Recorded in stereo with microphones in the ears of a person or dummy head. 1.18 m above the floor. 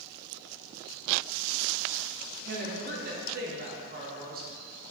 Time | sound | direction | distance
2.5 | a woman speaking | 45° right (ahead or behind) | 0.8 m